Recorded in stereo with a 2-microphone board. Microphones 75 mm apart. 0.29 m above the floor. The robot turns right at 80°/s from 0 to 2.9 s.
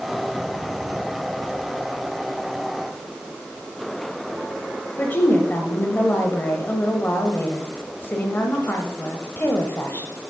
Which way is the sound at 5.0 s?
30° left (ahead or behind).